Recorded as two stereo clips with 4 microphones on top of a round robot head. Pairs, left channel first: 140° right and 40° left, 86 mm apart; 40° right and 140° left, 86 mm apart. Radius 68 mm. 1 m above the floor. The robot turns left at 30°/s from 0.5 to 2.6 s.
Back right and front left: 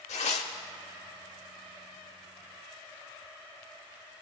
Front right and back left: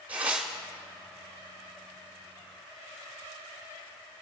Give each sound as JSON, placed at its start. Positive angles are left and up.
{"t": 0.1, "sound": "tearing paper", "azimuth_deg": -145, "distance_m": 0.8}